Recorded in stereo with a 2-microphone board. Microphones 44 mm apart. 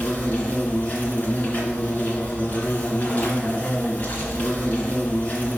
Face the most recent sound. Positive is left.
turn(degrees=45)  # may be behind; listen again after turning